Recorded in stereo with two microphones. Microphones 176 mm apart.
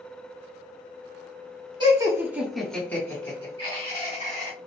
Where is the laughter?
25° right (ahead or behind), 1.4 m; by 4.5 s 50° left (ahead or behind), 2 m.